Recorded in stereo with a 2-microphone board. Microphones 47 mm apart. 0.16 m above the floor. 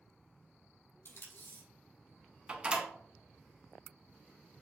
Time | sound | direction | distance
1.1 | tape being pulled | 75° left (ahead or behind) | 2.5 m
2.5 | a door slam | 25° right (ahead or behind) | 1.0 m